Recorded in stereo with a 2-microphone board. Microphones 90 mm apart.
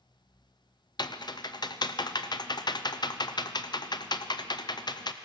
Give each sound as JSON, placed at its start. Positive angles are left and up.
{"t": 1.0, "sound": "typing on a keyboard", "side_deg": 50, "distance_m": 0.5}